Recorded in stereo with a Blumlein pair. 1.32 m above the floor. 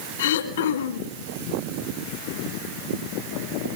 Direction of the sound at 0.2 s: 60° left.